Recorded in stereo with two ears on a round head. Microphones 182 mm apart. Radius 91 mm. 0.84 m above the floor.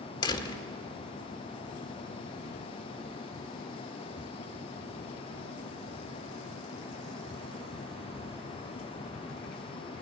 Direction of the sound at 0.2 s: 25° left (ahead or behind).